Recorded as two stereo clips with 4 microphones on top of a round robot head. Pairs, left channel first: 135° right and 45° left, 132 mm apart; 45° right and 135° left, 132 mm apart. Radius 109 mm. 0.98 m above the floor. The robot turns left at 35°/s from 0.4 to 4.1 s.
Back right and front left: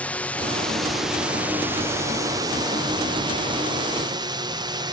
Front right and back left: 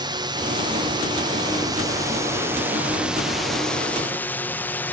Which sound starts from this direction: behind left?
A drone, at 0.0 s.